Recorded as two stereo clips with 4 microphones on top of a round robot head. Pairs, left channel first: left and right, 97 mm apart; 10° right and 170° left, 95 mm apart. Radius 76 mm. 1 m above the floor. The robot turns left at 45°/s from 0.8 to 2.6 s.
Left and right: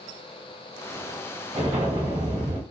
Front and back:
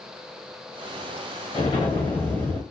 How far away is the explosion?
About 0.9 m.